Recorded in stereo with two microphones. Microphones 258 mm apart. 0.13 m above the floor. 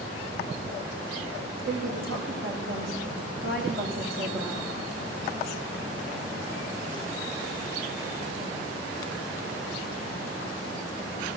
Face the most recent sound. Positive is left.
turn(degrees=-50)  # may be behind; listen again after turning